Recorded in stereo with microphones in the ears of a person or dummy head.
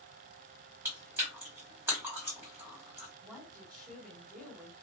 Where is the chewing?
10° right (ahead or behind), 1.6 m.